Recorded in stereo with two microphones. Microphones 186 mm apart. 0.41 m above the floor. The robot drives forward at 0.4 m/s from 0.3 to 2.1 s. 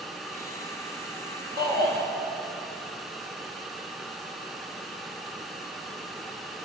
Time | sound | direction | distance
1.6 | a shout | 60° right (ahead or behind) | 9.5 m